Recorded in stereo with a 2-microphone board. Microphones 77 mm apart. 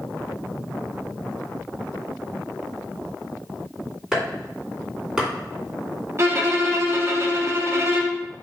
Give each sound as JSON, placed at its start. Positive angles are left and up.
{"t": 4.1, "sound": "chopping", "side_deg": -5, "distance_m": 2.5}
{"t": 6.2, "sound": "a violin", "side_deg": -35, "distance_m": 0.8}